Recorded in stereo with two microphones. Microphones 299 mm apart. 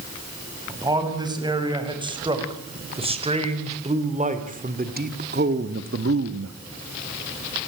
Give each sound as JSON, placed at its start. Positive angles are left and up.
{"t": 0.7, "sound": "a man speaking", "side_deg": -15, "distance_m": 7.0}